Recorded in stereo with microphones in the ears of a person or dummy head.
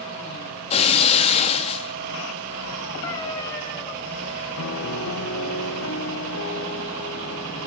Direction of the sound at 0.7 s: 35° left (ahead or behind).